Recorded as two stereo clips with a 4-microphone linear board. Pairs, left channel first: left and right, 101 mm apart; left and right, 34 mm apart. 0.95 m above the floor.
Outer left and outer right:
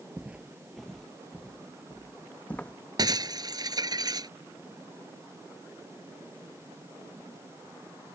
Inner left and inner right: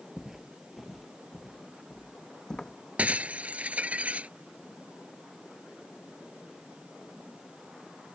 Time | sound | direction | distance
0.2 | footsteps | 15° right (ahead or behind) | ?
3.0 | breaking glass | 45° right (ahead or behind) | ?